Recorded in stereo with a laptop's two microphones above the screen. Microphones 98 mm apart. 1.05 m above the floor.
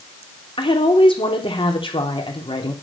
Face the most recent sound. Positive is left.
turn(degrees=55)  # may be behind; listen again after turning